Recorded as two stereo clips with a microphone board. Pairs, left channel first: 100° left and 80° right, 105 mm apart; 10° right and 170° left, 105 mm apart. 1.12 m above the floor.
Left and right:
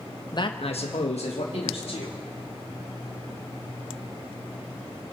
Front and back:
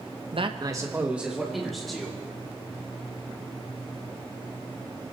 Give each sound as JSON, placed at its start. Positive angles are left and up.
{"t": 0.3, "sound": "a man speaking", "azimuth_deg": 150, "distance_m": 1.0}